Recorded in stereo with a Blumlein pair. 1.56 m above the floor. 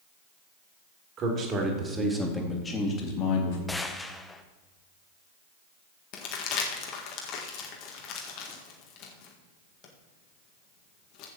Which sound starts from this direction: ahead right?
A man speaking, at 1.2 s.